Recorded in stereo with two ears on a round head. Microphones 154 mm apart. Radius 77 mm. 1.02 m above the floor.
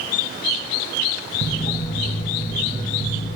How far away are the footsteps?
About 1.5 m.